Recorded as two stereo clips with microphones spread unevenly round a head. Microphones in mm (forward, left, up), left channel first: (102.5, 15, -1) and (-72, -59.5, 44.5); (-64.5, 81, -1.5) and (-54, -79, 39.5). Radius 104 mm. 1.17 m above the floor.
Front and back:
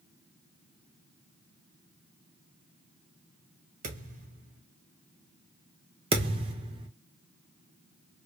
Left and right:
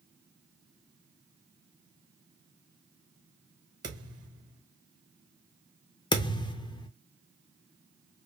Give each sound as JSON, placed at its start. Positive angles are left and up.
{"t": 3.8, "sound": "a thud", "azimuth_deg": -135, "distance_m": 1.5}
{"t": 6.1, "sound": "a thud", "azimuth_deg": 160, "distance_m": 0.8}